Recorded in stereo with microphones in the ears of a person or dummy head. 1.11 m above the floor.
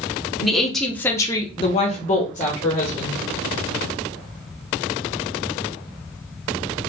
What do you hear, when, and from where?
0.4 s a woman speaking: 5° right (ahead or behind), 0.8 m; by 3.2 s 35° left (ahead or behind), 1.0 m